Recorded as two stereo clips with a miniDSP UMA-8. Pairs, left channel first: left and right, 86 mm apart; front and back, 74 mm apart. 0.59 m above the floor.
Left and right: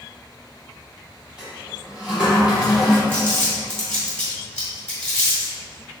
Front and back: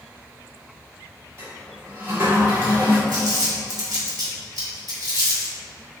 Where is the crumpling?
170° left, 1.9 m.